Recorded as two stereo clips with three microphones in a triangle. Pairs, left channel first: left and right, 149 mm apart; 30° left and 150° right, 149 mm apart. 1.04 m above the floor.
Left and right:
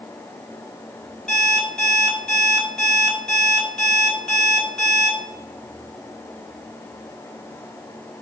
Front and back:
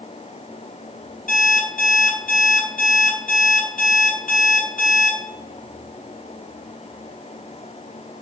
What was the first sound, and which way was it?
An alarm clock, 5° left.